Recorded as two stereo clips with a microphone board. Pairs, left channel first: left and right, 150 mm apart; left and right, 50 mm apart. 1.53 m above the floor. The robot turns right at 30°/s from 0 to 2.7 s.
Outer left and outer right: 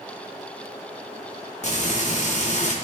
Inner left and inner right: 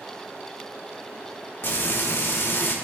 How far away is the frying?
About 1.6 m.